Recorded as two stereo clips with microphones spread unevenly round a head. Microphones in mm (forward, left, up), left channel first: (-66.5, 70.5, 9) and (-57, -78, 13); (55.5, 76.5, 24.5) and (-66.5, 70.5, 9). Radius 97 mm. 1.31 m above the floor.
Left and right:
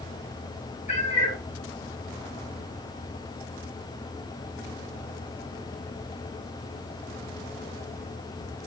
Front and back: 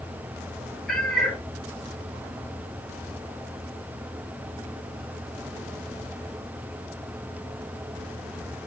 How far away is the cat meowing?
About 1.5 m.